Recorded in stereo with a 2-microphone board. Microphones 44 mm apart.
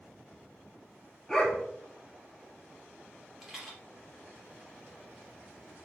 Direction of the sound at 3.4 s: 5° right (ahead or behind).